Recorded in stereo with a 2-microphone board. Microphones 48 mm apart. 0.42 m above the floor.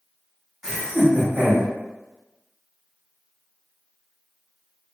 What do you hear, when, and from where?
0.6 s laughter: 5° right (ahead or behind), 1.5 m; by 1.7 s 20° right (ahead or behind), 1.5 m